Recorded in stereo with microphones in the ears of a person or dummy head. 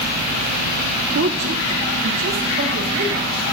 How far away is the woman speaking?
About 0.6 m.